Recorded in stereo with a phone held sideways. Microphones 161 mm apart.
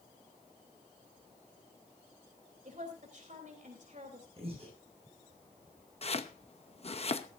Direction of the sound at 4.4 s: 40° right (ahead or behind).